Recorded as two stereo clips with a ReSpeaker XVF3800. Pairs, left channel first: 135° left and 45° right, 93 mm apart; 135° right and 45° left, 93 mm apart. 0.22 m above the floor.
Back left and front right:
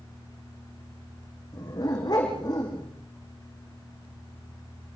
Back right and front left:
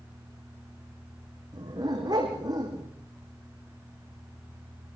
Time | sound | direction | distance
1.5 | a dog barking | 90° left | 6.5 m